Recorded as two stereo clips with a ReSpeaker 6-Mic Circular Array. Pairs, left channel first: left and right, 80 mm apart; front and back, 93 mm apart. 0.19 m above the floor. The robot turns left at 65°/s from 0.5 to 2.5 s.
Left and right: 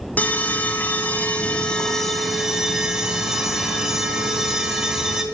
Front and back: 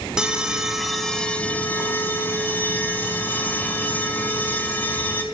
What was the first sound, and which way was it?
An alarm, 110° left.